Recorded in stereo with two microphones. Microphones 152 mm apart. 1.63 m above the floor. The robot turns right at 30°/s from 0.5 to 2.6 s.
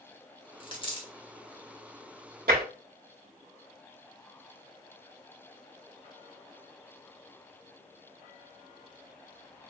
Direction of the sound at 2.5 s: 80° right.